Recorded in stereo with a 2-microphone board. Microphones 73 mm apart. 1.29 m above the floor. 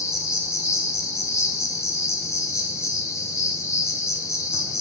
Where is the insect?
45° left (ahead or behind), 0.8 m.